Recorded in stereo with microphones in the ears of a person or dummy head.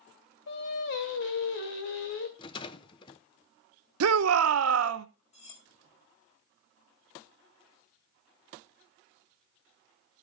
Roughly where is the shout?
Right.